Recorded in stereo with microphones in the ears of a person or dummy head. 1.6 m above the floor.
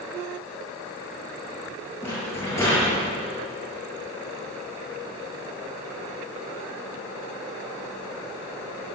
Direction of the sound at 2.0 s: 15° left (ahead or behind).